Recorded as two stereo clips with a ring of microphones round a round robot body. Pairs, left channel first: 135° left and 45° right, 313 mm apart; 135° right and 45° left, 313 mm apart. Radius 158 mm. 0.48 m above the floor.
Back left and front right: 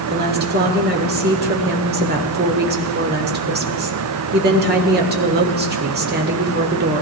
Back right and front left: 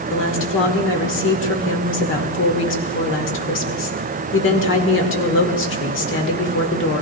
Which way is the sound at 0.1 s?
95° right.